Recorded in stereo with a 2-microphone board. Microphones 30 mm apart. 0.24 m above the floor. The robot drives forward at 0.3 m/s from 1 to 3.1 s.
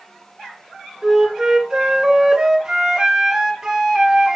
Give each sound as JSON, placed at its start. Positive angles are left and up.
{"t": 1.0, "sound": "a flute", "side_deg": -20, "distance_m": 2.5}